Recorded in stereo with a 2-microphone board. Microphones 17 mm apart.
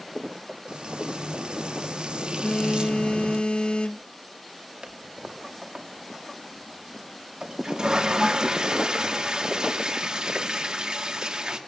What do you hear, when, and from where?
0.7 s frying: 65° right (ahead or behind), 1.1 m
2.4 s a phone buzzing: 75° left (ahead or behind), 0.9 m
4.8 s a toilet flushing: 50° right (ahead or behind), 2 m